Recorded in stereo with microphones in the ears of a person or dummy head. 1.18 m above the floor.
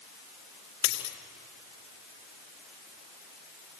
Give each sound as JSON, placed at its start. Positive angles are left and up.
{"t": 0.8, "sound": "a dropped coin", "side_deg": 65, "distance_m": 3.5}